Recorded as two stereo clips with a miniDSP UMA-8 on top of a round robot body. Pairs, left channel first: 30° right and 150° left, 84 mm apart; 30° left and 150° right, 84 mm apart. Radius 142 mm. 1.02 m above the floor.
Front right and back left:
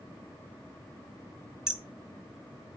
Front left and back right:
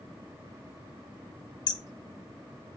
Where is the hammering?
70° left, 1.1 m.